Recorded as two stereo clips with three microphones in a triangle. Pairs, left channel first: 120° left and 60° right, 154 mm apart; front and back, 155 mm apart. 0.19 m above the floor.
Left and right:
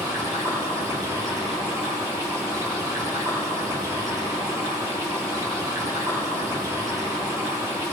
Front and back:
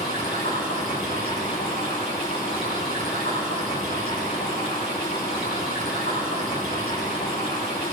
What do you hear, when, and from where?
0.0 s running water: 5° left, 8.5 m